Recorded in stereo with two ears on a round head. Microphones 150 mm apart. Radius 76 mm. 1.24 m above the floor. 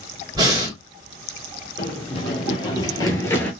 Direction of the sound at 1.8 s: 30° left (ahead or behind).